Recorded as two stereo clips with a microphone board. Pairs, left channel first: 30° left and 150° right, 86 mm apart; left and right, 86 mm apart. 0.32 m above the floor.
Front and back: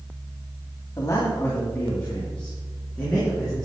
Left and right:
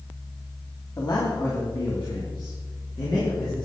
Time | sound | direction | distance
1.0 | a man speaking | 70° left | 2.5 m